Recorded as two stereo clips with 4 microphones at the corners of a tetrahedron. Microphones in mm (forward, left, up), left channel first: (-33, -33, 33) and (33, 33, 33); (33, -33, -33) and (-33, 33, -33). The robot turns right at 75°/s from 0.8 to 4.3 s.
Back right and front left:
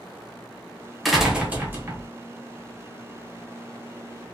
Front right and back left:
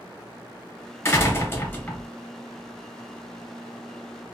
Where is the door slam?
50° right, 0.8 m; by 2.1 s 30° left, 0.8 m.